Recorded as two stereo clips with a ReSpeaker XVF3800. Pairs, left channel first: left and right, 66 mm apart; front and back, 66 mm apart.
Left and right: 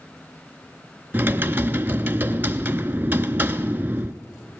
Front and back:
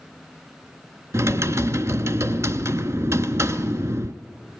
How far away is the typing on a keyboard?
About 0.6 m.